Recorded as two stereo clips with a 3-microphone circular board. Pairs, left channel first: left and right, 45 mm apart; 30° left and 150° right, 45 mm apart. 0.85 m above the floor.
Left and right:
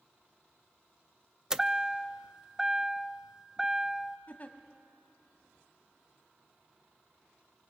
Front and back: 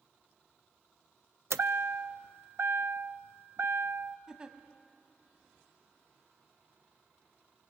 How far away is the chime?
About 0.5 m.